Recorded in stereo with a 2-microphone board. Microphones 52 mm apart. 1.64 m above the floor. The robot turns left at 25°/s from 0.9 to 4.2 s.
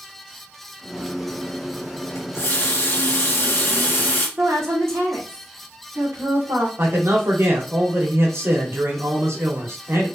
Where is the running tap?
85° left, 1.8 m; by 4.3 s 35° left, 1.8 m.